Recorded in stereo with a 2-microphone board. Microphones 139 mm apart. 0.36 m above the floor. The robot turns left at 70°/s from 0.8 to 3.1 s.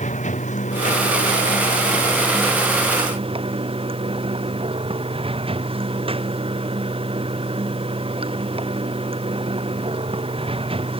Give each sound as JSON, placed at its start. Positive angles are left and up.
{"t": 0.0, "sound": "running water", "azimuth_deg": 120}